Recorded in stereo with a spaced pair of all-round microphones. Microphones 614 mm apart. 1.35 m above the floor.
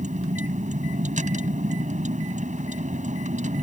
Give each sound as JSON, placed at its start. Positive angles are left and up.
{"t": 0.0, "sound": "a vehicle", "side_deg": -10}